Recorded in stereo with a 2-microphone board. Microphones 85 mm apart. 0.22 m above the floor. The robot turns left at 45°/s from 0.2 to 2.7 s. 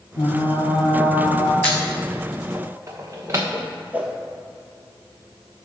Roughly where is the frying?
Left.